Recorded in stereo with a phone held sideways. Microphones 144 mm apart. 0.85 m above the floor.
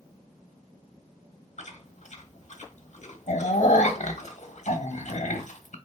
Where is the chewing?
60° left (ahead or behind), 1.0 m.